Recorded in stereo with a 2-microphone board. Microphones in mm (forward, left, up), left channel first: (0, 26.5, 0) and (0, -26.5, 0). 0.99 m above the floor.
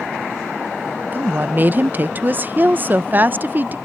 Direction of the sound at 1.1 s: 35° right (ahead or behind).